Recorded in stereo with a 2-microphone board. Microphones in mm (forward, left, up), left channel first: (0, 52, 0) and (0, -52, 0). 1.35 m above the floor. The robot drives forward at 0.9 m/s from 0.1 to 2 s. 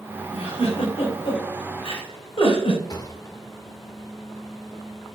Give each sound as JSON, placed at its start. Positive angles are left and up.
{"t": 0.3, "sound": "a giggle", "side_deg": 80, "distance_m": 3.0}
{"t": 2.9, "sound": "a thud", "side_deg": 40, "distance_m": 1.2}